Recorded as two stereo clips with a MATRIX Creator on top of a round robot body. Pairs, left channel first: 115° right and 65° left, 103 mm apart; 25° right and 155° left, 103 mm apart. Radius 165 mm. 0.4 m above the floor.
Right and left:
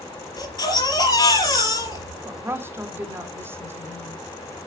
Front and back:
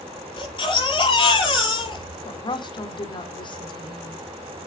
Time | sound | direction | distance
0.4 | a baby crying | 60° right | 5.5 m
2.2 | a woman speaking | 5° left | 2 m